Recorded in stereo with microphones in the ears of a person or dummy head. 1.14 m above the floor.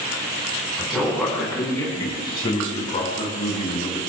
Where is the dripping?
No dripping in this recording.